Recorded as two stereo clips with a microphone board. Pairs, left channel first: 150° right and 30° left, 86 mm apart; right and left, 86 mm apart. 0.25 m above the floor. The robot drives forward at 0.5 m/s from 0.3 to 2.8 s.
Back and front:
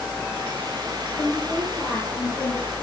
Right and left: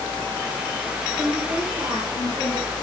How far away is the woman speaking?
About 6.5 m.